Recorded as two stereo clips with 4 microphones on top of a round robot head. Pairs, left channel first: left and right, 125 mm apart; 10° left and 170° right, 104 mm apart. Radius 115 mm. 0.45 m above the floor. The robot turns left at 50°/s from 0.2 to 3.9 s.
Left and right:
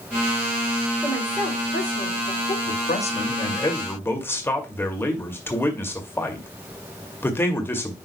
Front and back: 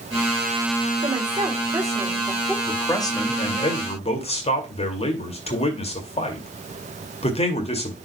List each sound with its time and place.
1.0 s a woman speaking: 170° left, 2.5 m; by 2.6 s 95° left, 2.5 m
2.7 s a man speaking: 80° left, 2 m; by 8.0 s 15° left, 2 m